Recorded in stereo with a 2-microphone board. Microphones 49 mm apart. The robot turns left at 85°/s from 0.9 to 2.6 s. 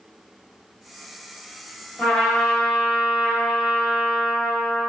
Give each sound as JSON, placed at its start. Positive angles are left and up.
{"t": 2.0, "sound": "a trumpet", "side_deg": 15, "distance_m": 1.4}